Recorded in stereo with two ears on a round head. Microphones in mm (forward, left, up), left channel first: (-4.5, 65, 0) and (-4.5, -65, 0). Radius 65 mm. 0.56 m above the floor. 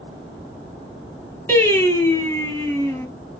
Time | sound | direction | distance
1.5 | singing | 15° left (ahead or behind) | 2.5 m